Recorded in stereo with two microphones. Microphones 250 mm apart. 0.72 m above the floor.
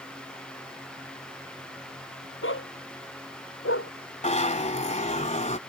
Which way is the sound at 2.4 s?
60° left (ahead or behind).